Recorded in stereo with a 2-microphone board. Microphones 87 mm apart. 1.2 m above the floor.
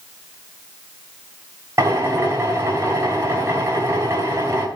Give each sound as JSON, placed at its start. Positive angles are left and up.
{"t": 1.8, "sound": "a drill", "side_deg": -35, "distance_m": 2.5}